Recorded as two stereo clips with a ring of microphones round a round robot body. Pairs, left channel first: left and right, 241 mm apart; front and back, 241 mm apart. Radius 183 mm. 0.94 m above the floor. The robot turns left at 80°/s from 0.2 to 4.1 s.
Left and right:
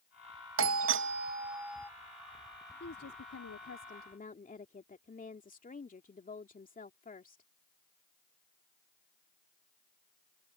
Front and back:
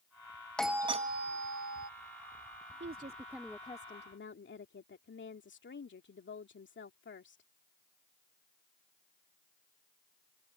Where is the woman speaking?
140° left; by 7.4 s 35° left.